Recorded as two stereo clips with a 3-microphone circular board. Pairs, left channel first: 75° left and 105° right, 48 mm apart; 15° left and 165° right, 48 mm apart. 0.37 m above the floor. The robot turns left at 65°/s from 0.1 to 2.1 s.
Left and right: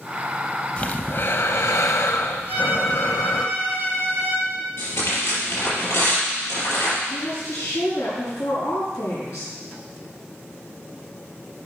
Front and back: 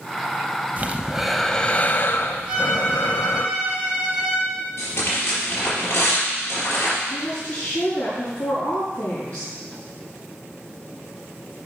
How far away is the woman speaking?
About 5 m.